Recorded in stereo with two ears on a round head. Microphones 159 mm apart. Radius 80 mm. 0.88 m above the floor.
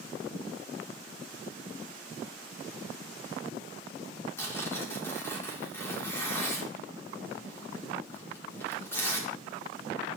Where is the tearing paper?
15° left (ahead or behind), 2 m.